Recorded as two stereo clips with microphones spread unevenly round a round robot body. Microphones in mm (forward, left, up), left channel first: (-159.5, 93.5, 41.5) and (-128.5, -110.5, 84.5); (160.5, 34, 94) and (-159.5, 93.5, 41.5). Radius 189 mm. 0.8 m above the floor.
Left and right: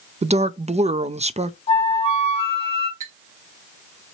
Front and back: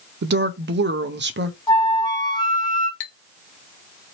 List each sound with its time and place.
0.2 s a woman speaking: 150° right, 0.5 m
1.7 s a flute: 75° left, 0.9 m
3.0 s a clink: straight ahead, 0.8 m